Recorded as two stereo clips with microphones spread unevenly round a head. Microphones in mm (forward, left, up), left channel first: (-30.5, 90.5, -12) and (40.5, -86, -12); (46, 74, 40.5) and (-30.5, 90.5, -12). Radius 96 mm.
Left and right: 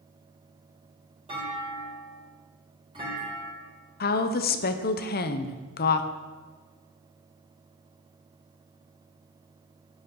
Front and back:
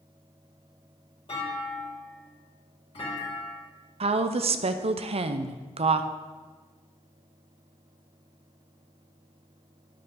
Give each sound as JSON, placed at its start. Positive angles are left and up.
{"t": 1.3, "sound": "a clunk", "azimuth_deg": -5, "distance_m": 4.0}
{"t": 4.0, "sound": "a woman speaking", "azimuth_deg": 160, "distance_m": 0.7}